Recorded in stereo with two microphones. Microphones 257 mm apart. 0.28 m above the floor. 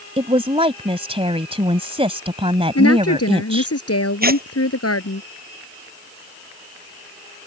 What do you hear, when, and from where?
0.2 s a woman speaking: 25° right (ahead or behind)
2.8 s a woman speaking: 70° left (ahead or behind)
4.2 s tearing paper: 35° right (ahead or behind)